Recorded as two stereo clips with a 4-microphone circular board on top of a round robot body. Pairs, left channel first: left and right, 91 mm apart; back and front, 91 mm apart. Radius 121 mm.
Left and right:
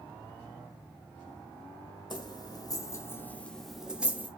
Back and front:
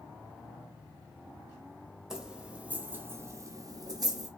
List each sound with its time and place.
2.1 s keys jangling: 85° left, 1.2 m; by 4.3 s 25° right, 1.0 m